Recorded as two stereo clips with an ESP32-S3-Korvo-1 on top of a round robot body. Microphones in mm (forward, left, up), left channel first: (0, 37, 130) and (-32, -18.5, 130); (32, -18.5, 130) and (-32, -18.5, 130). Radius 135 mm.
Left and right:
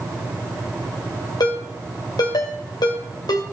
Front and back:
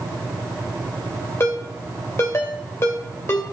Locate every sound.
1.4 s a ringtone: 50° left, 2.5 m